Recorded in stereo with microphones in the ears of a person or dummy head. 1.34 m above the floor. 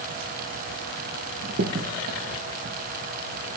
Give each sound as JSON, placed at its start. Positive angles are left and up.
{"t": 1.4, "sound": "a crack", "side_deg": -55, "distance_m": 0.9}